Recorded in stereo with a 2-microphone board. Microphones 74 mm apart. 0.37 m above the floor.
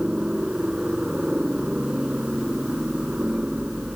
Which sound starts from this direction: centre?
A helicopter, at 0.0 s.